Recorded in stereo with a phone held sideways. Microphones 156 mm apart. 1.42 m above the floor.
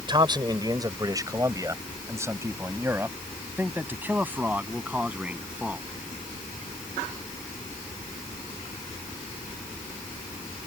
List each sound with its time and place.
0.1 s a man speaking: 30° right (ahead or behind); by 5.8 s 10° right (ahead or behind)